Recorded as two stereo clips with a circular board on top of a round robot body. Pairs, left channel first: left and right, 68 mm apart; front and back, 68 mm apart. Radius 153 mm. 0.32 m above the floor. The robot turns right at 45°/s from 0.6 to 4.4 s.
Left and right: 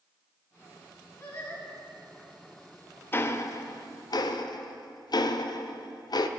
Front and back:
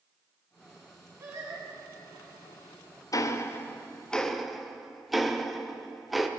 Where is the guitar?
I don't hear a guitar.